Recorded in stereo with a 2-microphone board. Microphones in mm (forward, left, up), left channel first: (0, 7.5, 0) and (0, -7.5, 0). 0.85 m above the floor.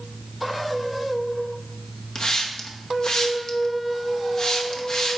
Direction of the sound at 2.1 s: 50° left (ahead or behind).